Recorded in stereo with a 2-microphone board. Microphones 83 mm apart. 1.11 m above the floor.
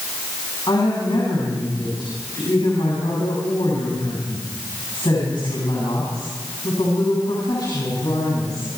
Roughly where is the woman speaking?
Left.